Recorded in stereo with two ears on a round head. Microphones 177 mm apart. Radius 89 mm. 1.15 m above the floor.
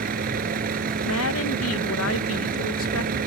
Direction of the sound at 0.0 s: 45° right (ahead or behind).